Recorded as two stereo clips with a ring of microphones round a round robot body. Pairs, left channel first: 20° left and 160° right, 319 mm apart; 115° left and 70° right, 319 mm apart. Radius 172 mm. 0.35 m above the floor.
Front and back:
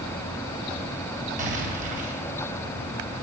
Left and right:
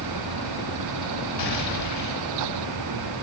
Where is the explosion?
140° left, 2.5 m.